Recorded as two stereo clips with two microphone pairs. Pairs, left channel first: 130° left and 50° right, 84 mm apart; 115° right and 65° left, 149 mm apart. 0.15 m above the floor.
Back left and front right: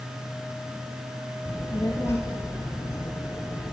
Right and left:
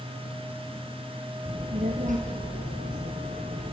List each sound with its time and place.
1.4 s a child speaking: 75° left, 2.5 m